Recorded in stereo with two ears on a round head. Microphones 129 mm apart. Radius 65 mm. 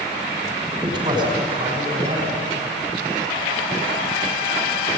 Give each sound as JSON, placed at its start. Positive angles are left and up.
{"t": 0.7, "sound": "a man speaking", "side_deg": -35, "distance_m": 6.0}